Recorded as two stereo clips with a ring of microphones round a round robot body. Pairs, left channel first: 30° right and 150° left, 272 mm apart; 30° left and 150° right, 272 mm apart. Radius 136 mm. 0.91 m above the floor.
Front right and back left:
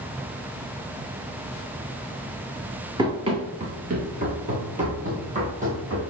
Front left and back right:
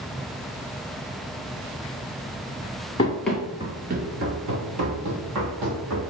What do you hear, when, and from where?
3.0 s running footsteps: 85° left, 1.0 m; by 6.0 s 145° right, 2.5 m